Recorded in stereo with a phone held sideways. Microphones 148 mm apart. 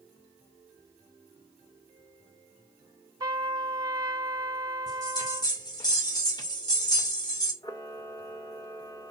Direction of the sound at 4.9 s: 30° left (ahead or behind).